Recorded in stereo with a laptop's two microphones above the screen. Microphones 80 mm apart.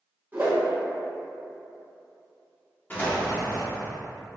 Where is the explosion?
25° left (ahead or behind), 0.6 m.